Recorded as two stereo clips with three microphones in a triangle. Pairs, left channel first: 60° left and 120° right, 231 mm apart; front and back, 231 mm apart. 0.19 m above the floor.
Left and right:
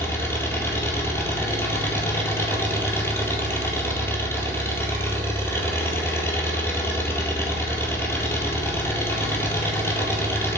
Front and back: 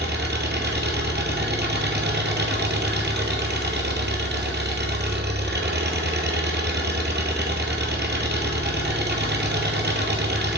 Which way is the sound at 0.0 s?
140° left.